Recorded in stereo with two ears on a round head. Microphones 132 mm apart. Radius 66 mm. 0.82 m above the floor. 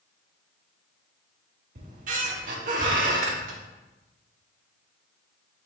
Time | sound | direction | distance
1.8 | a squeak | 60° right (ahead or behind) | 0.8 m